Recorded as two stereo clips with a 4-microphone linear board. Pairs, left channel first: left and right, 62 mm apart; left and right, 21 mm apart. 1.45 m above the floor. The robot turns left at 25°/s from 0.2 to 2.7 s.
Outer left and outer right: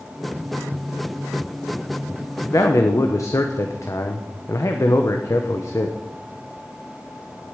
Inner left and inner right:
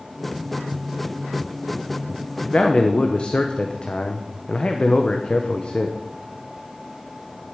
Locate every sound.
2.4 s a man speaking: 60° left (ahead or behind), 0.9 m; by 6.0 s 55° left (ahead or behind), 0.9 m